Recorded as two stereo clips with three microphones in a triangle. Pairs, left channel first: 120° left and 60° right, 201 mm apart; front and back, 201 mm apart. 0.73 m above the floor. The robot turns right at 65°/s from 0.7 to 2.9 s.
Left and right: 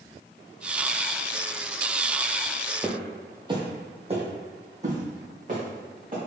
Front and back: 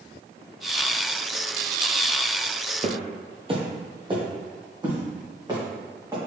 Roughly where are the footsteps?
Behind right.